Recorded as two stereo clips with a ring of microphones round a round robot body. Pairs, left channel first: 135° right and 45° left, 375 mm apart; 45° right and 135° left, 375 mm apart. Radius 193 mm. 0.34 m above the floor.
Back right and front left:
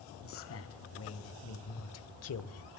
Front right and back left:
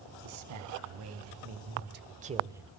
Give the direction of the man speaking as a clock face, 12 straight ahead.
6 o'clock.